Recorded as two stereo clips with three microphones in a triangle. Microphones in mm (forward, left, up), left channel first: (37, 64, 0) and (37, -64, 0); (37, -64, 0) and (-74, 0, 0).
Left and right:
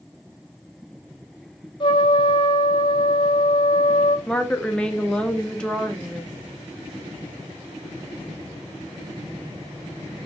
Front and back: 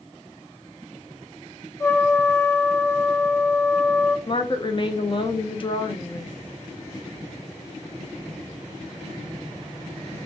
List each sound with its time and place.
1.8 s a trumpet: 40° left, 0.8 m
4.3 s a woman speaking: 10° left, 0.6 m